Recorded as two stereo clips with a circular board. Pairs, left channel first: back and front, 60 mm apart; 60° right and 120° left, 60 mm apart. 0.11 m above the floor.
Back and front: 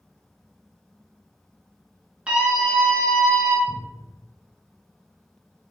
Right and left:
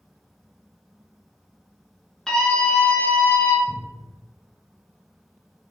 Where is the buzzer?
I don't hear a buzzer.